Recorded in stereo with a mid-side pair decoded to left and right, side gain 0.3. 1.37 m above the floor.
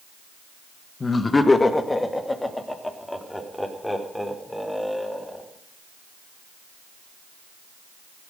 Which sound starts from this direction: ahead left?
Laughter, at 1.0 s.